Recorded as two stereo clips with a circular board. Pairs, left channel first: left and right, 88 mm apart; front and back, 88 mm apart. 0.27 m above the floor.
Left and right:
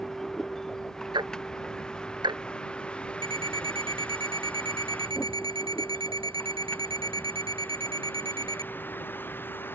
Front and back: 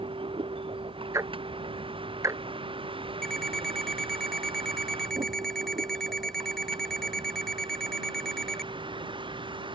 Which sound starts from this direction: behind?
A vehicle, at 0.0 s.